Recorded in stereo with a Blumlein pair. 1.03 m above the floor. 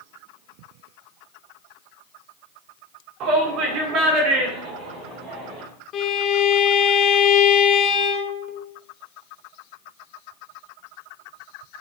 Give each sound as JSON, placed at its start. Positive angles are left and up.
{"t": 3.2, "sound": "a shout", "azimuth_deg": -40, "distance_m": 2.0}
{"t": 5.9, "sound": "a violin", "azimuth_deg": 30, "distance_m": 1.0}